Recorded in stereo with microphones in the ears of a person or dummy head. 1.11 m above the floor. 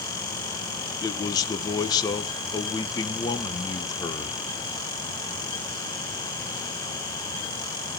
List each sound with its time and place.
1.0 s a man speaking: 20° left (ahead or behind), 0.9 m